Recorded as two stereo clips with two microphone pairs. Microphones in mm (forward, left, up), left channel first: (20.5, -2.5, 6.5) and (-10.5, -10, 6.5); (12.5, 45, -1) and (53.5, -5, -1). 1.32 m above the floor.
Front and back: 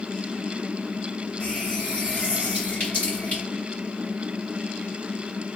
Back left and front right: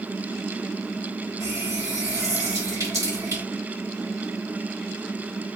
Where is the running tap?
30° right, 1.8 m.